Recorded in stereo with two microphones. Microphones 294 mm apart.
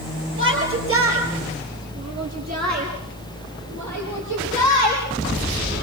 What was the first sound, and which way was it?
A shout, 45° right (ahead or behind).